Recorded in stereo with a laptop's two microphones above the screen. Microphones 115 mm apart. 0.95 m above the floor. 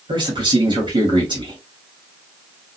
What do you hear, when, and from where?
0.1 s a man speaking: 45° right (ahead or behind), 1.7 m